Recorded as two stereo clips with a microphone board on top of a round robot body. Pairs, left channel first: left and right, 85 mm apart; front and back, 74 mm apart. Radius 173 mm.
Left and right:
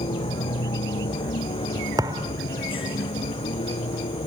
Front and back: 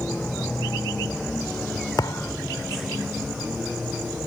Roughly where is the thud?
Ahead right.